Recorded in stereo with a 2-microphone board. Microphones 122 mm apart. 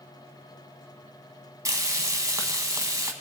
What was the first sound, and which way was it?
Frying, 25° right (ahead or behind).